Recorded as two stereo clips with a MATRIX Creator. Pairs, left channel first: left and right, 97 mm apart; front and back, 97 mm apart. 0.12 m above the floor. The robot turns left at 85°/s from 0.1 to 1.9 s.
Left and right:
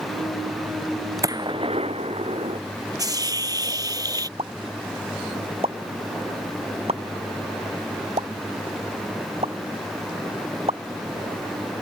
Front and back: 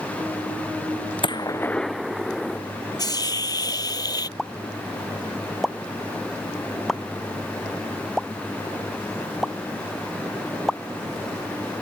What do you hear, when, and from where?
1.2 s a gunshot: 35° right; by 2.6 s 90° right
3.0 s a hiss: 40° right
4.4 s a pop: 90° right